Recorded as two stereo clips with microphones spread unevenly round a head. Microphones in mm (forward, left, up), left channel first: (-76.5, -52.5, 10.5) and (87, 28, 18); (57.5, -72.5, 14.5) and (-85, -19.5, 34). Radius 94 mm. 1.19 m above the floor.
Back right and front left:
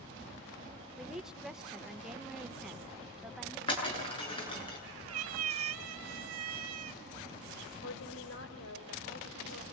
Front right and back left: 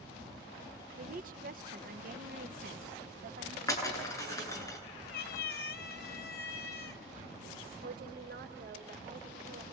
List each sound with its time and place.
1.0 s a woman speaking: 115° left, 1.0 m
3.7 s breaking glass: 90° right, 8 m
5.1 s a cat meowing: 20° left, 1.5 m
7.8 s a woman speaking: 175° right, 4.5 m